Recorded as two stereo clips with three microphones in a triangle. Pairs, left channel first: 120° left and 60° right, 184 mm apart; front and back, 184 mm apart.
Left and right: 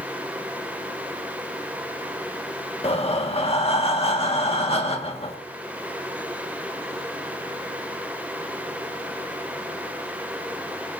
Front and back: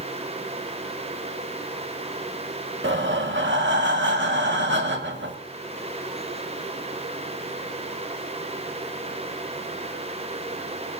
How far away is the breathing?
About 1.8 m.